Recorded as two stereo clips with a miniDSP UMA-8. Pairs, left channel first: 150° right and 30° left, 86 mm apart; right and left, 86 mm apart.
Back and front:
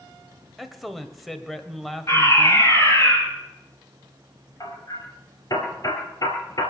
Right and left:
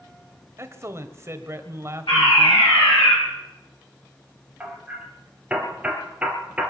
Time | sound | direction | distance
0.6 | a man speaking | 120° left | 1.4 m
2.1 | a fire alarm | 95° right | 9 m
4.6 | hammering | 165° left | 4 m